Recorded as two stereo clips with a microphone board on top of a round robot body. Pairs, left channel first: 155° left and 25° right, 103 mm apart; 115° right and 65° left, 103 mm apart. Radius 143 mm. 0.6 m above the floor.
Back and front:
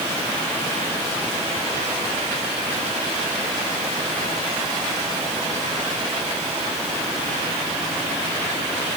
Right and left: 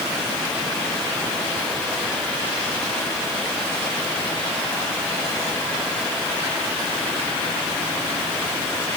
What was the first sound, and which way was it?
Only background noise.